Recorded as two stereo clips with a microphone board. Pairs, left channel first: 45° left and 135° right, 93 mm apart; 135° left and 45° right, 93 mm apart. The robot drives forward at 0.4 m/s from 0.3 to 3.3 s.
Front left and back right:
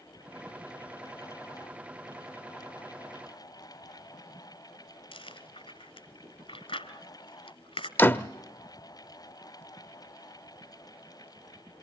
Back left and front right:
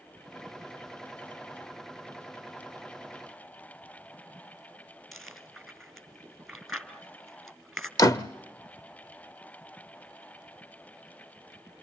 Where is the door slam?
100° left, 0.6 m.